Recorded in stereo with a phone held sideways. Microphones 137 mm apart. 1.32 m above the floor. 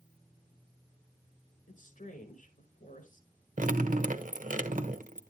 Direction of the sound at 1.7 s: 80° left.